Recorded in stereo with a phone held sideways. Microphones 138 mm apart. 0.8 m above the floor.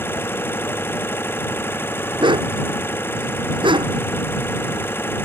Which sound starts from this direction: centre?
An engine running, at 0.0 s.